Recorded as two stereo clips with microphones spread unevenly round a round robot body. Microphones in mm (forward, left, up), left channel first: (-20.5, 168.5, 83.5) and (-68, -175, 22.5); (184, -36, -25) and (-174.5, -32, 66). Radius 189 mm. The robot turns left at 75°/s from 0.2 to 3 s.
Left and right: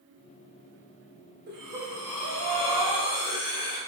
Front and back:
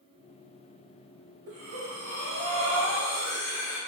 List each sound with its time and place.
1.5 s breathing: 155° right, 0.8 m; by 3.8 s 90° left, 0.8 m